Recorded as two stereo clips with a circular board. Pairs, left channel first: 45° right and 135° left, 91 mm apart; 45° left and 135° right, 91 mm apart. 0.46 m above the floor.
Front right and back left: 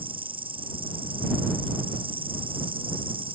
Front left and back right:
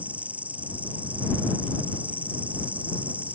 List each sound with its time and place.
0.0 s an insect: 150° left